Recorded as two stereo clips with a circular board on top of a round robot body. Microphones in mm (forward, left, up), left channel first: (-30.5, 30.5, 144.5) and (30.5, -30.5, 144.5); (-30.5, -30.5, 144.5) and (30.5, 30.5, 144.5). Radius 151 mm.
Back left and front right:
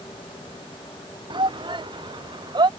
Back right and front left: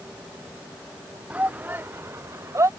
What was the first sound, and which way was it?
A shout, 30° right.